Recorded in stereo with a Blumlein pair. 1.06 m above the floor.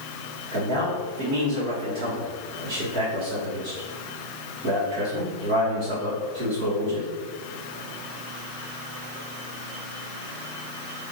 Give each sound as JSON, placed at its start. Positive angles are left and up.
{"t": 0.5, "sound": "a man speaking", "azimuth_deg": -45, "distance_m": 1.8}